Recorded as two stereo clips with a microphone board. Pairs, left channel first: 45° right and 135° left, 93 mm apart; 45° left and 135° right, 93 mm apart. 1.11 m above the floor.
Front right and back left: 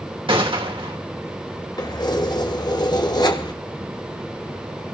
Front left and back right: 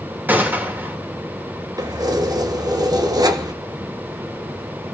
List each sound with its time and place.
0.3 s a gunshot: 155° left, 2.5 m
1.8 s keys jangling: 90° right, 1.2 m